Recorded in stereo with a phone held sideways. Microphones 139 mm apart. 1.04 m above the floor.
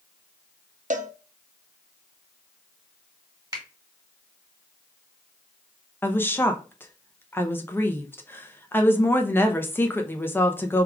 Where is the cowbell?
65° right (ahead or behind), 0.6 m.